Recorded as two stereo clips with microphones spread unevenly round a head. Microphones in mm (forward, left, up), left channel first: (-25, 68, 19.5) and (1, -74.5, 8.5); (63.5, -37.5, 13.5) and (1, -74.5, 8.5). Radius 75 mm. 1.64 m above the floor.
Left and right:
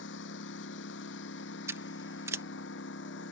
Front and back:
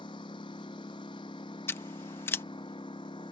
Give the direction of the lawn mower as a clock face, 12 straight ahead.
9 o'clock.